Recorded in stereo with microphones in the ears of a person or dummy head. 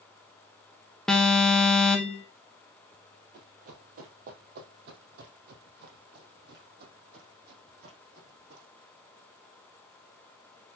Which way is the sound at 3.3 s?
45° right (ahead or behind).